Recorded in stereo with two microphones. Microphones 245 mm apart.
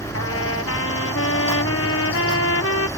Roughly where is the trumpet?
Left.